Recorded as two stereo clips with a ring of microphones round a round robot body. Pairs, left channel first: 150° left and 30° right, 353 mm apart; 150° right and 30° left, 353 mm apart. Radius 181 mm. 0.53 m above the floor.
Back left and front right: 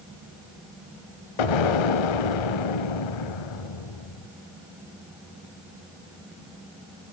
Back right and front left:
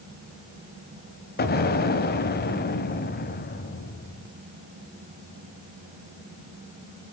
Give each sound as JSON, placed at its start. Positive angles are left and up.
{"t": 1.4, "sound": "an explosion", "azimuth_deg": 145, "distance_m": 1.4}